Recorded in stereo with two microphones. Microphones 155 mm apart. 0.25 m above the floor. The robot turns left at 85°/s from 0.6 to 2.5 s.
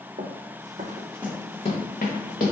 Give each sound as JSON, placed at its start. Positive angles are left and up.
{"t": 0.2, "sound": "running footsteps", "side_deg": -60, "distance_m": 0.6}